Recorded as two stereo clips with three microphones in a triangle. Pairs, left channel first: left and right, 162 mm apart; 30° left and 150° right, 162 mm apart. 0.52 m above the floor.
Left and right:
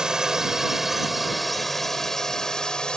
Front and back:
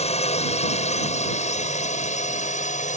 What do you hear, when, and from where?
0.0 s a drone: 5° right; by 3.0 s 5° left